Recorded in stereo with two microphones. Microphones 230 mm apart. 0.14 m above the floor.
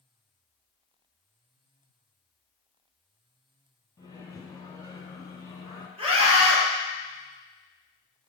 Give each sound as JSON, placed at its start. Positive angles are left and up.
{"t": 4.0, "sound": "a microwave", "side_deg": 15, "distance_m": 1.3}
{"t": 6.0, "sound": "a scream", "side_deg": -25, "distance_m": 2.5}